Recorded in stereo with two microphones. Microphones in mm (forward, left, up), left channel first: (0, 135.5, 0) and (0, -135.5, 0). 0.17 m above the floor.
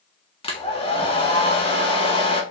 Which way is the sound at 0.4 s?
20° left (ahead or behind).